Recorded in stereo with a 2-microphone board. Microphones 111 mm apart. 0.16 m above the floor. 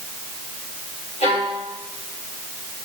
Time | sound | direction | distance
1.2 | a violin | 70° left (ahead or behind) | 4.5 m